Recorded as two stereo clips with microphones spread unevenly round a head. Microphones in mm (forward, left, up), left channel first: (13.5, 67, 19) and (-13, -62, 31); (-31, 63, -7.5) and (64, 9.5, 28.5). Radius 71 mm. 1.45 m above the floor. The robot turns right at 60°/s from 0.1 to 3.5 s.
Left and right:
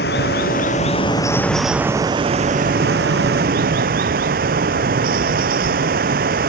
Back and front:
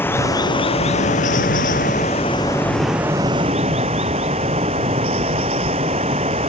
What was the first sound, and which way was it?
Running water, 75° left.